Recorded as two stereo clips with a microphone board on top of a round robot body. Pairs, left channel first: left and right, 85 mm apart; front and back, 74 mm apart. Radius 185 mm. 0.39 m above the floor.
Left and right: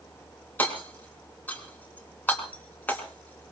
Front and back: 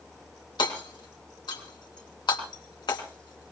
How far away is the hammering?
About 3.5 m.